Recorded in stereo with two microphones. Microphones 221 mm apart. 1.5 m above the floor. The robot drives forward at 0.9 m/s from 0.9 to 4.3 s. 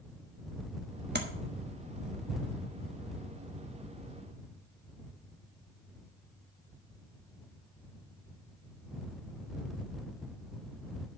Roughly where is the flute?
I don't hear a flute.